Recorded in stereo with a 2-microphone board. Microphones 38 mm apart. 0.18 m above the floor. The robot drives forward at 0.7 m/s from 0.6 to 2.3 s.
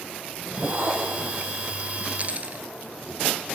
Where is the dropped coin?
40° right (ahead or behind), 1.1 m.